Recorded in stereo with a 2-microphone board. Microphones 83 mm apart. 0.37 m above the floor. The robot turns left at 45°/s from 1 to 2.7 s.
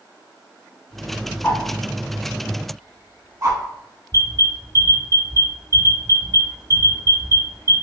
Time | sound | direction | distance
1.4 | a whoosh | 15° left (ahead or behind) | 0.8 m
4.1 | an alarm | 40° right (ahead or behind) | 1.8 m